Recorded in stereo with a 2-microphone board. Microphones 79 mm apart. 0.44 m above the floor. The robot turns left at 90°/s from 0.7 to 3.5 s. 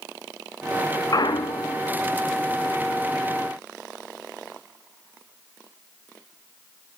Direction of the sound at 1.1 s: 130° left.